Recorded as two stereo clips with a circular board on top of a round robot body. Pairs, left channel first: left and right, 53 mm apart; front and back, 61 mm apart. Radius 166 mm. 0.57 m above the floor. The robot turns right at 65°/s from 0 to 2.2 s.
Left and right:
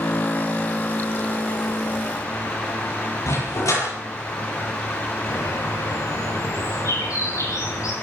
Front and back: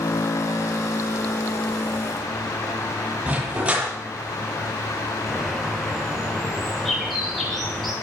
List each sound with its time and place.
3.3 s a dog barking: 105° left, 9 m
5.3 s a bird: 85° left, 9 m